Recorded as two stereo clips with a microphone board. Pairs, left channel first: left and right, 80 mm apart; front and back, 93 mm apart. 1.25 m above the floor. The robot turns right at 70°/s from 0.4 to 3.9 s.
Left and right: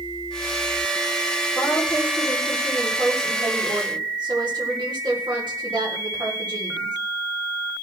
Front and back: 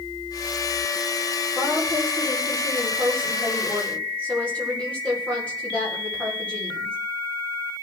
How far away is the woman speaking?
About 3.5 m.